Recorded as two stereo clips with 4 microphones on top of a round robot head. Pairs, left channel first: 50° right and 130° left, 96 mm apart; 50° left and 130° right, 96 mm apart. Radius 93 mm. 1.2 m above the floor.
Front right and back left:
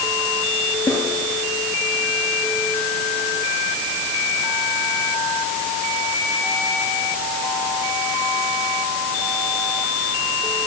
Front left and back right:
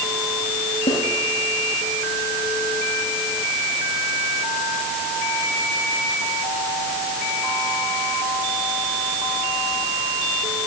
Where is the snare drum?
20° left, 8.5 m.